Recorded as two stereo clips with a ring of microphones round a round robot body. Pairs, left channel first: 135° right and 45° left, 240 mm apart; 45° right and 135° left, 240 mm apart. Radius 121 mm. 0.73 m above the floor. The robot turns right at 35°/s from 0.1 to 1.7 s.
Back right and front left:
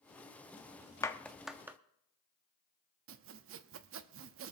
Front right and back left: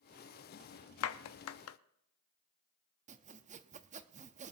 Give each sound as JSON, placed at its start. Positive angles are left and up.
{"t": 1.0, "sound": "a clap", "azimuth_deg": -60, "distance_m": 0.8}
{"t": 3.1, "sound": "sawing", "azimuth_deg": 75, "distance_m": 0.7}